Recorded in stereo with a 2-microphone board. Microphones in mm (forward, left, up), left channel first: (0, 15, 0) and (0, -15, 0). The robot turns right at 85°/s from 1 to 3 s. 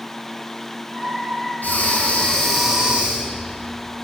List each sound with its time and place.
1.6 s breathing: 95° left, 2.5 m; by 3.5 s 145° right, 2.5 m